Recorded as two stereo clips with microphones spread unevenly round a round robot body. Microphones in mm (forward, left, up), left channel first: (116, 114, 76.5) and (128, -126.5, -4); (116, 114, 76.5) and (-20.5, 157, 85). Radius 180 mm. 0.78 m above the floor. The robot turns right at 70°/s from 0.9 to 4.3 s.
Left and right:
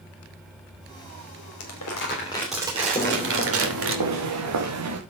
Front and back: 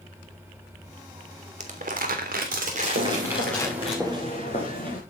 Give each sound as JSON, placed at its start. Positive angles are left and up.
{"t": 1.6, "sound": "crumpling", "azimuth_deg": 125, "distance_m": 3.0}
{"t": 3.0, "sound": "footsteps", "azimuth_deg": 160, "distance_m": 4.0}